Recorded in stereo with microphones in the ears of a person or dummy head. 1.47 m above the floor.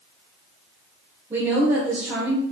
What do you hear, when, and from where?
1.3 s a woman speaking: 15° right (ahead or behind), 1.2 m